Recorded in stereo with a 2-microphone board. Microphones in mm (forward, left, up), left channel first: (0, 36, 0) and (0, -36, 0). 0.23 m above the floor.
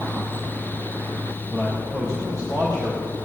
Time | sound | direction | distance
1.5 | a man speaking | 40° left (ahead or behind) | 5 m